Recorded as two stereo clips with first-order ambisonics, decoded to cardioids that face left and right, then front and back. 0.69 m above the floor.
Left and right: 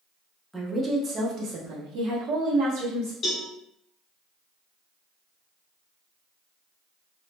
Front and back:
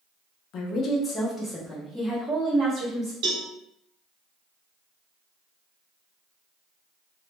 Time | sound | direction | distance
0.5 | a woman speaking | 10° right | 0.6 m
3.2 | a cowbell | 155° left | 0.8 m